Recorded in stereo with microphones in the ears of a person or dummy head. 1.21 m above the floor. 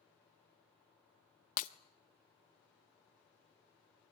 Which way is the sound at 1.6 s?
50° left (ahead or behind).